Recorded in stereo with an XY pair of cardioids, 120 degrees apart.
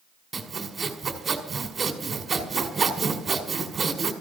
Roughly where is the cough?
No cough in this recording.